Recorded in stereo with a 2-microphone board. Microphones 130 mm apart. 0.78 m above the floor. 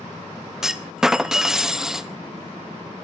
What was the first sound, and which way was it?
A clunk, 5° right (ahead or behind).